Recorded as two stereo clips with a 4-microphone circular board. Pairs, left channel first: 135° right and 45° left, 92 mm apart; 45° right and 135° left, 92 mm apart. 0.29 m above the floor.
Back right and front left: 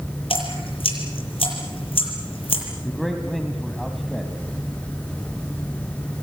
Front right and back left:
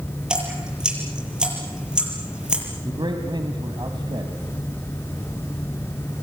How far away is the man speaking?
About 2.0 m.